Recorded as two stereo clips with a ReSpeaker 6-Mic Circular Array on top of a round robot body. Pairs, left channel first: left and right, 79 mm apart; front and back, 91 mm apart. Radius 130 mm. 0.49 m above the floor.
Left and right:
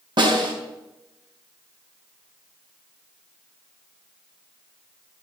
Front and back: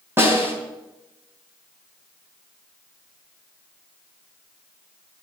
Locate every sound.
0.2 s a snare drum: 115° right, 3.5 m